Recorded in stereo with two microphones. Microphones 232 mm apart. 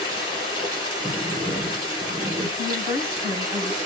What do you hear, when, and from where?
0.0 s running water: 15° right (ahead or behind), 3.5 m
1.0 s a sliding door: 25° right (ahead or behind), 1.7 m
2.6 s a woman speaking: 10° right (ahead or behind), 3 m